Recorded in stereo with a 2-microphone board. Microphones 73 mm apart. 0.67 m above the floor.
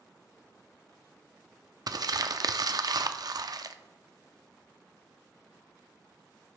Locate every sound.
1.9 s crumpling: 55° right (ahead or behind), 0.5 m